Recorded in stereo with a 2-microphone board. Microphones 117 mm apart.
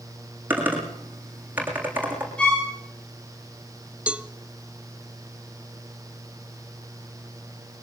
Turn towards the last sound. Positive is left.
turn(degrees=-10)  # may be behind; listen again after turning